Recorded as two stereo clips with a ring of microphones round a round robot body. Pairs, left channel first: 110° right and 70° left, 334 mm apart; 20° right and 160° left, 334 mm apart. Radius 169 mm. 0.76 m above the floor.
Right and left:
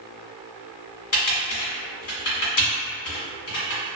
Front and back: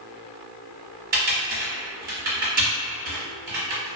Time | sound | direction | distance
1.1 | typing on a keyboard | 145° right | 1.1 m